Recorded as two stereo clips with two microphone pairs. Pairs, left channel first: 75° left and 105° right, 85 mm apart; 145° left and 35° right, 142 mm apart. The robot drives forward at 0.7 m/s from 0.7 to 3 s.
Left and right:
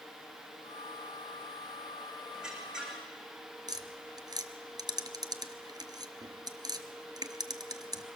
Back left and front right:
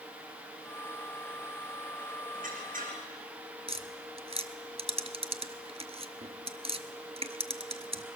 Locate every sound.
2.3 s a squeak: 20° right, 5 m
3.7 s tapping: 75° right, 1.0 m